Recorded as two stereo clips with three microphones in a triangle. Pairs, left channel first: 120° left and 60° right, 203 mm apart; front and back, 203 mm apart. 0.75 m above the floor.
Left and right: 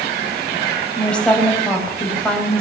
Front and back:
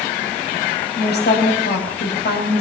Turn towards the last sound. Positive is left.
turn(degrees=35)